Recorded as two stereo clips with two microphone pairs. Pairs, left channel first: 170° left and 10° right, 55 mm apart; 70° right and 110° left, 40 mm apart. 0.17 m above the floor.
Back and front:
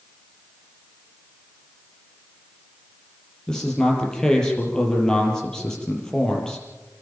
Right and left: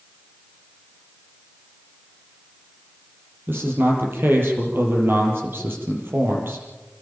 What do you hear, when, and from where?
3.5 s a man speaking: 90° left, 5.5 m